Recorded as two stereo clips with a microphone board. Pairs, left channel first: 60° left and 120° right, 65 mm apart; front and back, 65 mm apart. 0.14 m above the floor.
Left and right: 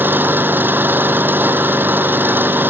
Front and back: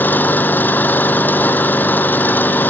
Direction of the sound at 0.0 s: 60° right.